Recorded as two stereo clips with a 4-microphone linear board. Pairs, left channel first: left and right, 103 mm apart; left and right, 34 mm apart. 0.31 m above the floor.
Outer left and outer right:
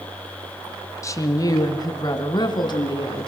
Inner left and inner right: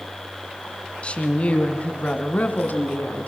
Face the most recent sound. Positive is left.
turn(degrees=45)  # may be behind; listen again after turning